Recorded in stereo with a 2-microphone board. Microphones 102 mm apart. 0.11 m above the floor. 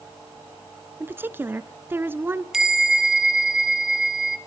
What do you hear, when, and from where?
1.0 s a woman speaking: 20° right (ahead or behind), 1.2 m
2.5 s a bell: 5° right (ahead or behind), 1.4 m